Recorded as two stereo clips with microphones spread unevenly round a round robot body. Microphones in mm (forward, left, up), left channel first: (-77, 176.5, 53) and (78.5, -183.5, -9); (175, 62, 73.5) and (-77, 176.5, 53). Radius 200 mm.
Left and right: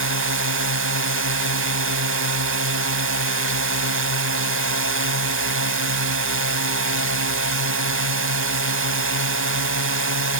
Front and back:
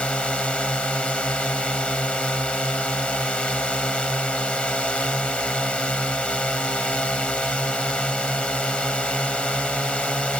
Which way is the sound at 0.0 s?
115° right.